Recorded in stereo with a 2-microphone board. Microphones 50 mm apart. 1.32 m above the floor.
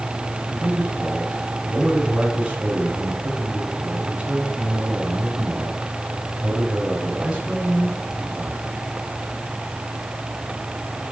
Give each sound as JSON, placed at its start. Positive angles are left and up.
{"t": 0.5, "sound": "a man speaking", "side_deg": -30, "distance_m": 4.5}